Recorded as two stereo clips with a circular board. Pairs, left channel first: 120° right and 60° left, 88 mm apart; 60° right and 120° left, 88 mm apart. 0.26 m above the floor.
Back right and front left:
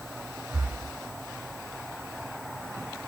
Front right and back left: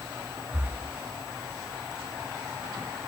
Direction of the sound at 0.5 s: 85° left.